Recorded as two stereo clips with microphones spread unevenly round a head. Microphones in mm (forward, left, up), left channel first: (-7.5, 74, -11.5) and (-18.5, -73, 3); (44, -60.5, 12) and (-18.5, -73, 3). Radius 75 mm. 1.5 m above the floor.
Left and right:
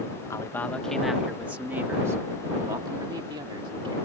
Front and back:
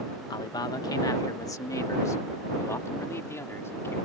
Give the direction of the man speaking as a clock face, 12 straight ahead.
12 o'clock.